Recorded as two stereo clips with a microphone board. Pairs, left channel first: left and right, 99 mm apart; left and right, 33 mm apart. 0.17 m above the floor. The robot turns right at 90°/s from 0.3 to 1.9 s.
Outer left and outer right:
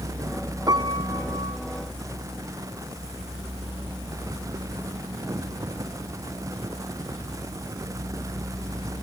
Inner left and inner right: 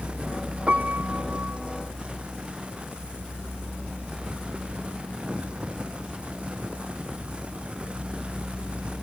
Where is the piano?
145° right; by 1.6 s 60° right.